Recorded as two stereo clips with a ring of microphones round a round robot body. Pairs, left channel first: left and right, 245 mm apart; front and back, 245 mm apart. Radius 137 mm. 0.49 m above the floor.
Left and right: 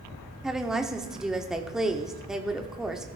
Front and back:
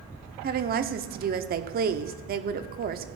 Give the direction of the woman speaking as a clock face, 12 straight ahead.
6 o'clock.